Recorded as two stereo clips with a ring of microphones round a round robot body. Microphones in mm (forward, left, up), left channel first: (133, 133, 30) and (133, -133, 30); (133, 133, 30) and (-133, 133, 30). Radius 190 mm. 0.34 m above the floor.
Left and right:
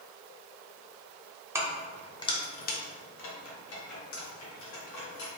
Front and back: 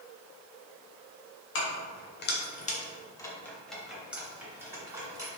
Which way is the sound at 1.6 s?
10° right.